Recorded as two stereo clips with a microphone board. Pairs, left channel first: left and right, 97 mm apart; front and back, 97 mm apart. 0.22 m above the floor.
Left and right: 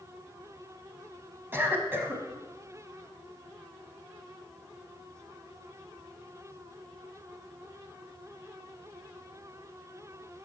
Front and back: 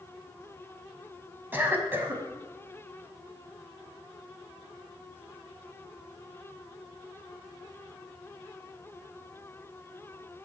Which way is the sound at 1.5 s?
135° right.